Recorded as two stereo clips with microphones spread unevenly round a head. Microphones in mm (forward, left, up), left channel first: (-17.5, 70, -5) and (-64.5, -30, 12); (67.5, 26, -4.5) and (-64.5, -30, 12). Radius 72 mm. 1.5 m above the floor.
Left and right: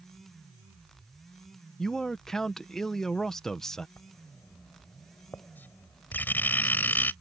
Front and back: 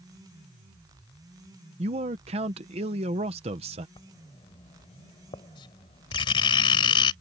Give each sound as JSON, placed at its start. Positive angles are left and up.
{"t": 1.8, "sound": "a man speaking", "azimuth_deg": 150}
{"t": 4.0, "sound": "writing", "azimuth_deg": -15}